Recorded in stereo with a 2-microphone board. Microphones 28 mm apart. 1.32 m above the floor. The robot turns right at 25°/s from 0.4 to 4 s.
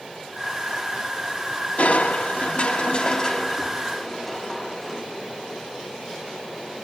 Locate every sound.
1.8 s crushing: 105° left, 1.5 m; by 5.0 s 160° left, 1.5 m